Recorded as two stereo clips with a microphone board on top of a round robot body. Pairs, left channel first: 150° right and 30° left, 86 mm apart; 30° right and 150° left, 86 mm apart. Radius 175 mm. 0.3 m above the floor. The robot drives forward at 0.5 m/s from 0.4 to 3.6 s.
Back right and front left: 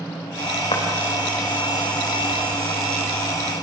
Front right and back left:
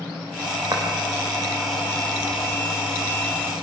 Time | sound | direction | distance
0.7 | footsteps | 165° right | 4 m